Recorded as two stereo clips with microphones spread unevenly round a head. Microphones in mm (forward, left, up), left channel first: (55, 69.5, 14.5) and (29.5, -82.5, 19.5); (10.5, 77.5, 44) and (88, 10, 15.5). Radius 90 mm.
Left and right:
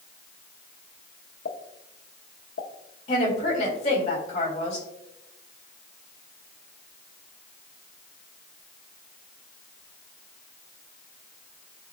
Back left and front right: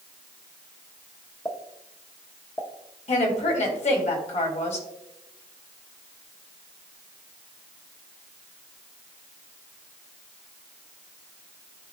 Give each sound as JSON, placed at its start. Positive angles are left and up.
{"t": 1.4, "sound": "a pop", "azimuth_deg": 70, "distance_m": 1.0}
{"t": 3.1, "sound": "a woman speaking", "azimuth_deg": 135, "distance_m": 2.5}